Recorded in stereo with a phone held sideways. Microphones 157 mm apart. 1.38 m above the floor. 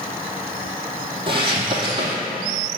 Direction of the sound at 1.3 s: 30° right (ahead or behind).